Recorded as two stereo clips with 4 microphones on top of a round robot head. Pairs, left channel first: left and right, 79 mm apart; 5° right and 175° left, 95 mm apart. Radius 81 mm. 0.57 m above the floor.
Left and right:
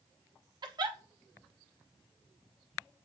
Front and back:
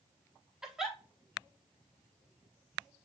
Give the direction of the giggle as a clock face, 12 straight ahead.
3 o'clock.